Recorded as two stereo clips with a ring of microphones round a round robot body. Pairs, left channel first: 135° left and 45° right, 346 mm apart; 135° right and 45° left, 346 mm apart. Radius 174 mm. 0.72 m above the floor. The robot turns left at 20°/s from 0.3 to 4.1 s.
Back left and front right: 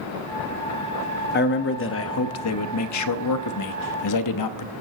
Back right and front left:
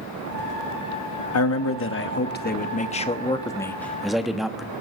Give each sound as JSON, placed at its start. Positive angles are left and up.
{"t": 1.3, "sound": "a man speaking", "azimuth_deg": -170, "distance_m": 0.9}